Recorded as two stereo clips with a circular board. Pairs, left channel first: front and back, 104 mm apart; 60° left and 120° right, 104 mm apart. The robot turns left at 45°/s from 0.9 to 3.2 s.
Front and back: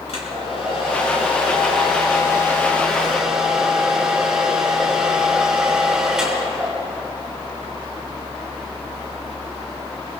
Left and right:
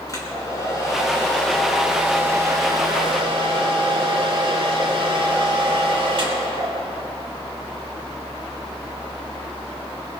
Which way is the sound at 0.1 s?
5° left.